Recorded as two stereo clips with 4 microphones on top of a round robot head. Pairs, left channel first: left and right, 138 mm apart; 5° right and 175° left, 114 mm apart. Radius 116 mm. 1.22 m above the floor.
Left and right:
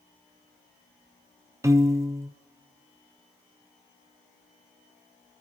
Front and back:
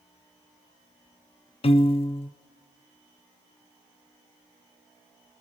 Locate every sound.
1.6 s a piano: 25° right, 0.7 m